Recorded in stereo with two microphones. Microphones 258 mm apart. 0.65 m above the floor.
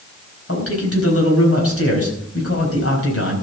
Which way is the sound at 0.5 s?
60° left (ahead or behind).